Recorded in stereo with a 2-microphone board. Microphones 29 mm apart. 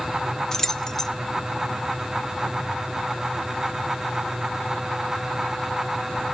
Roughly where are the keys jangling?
Centre.